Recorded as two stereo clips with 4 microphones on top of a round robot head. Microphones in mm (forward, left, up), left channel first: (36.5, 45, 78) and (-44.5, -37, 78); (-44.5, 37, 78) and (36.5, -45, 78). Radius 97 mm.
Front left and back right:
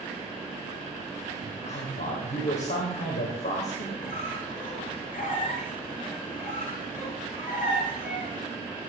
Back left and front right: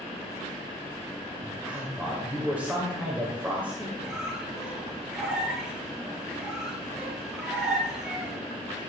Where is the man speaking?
30° left, 3 m.